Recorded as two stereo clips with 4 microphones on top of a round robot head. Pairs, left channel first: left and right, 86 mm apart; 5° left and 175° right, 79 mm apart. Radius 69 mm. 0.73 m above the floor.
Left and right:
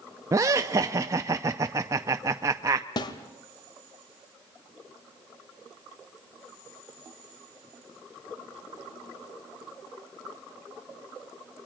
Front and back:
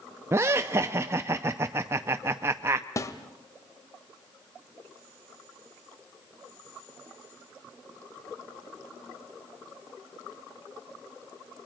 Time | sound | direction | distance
0.3 | laughter | 130° right | 0.5 m
3.0 | a snare drum | 55° left | 1.2 m